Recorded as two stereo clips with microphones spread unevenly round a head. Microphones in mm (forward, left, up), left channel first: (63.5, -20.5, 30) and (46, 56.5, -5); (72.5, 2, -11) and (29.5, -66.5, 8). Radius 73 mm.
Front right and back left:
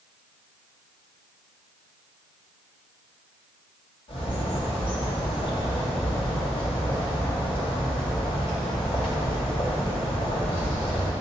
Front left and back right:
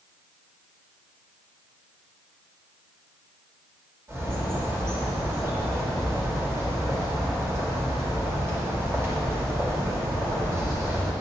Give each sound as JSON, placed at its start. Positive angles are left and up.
{"t": 4.1, "sound": "a bird", "azimuth_deg": -60, "distance_m": 1.8}